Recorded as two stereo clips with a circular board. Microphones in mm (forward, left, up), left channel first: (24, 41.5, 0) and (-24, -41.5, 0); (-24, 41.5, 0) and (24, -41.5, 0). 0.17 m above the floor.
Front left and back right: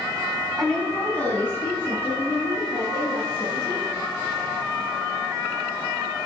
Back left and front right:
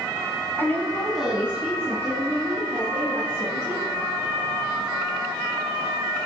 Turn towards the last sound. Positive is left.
turn(degrees=-5)